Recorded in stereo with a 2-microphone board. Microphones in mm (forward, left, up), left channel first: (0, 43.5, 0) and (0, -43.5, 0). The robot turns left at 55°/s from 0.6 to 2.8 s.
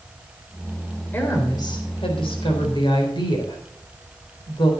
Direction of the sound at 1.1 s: 155° left.